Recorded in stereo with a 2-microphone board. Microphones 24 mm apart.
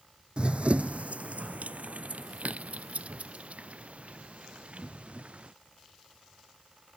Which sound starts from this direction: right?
Running footsteps, at 0.4 s.